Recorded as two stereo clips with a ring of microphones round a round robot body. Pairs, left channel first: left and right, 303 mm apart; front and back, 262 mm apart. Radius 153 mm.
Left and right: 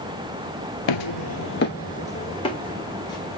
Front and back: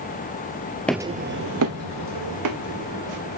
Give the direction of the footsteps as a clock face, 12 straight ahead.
9 o'clock.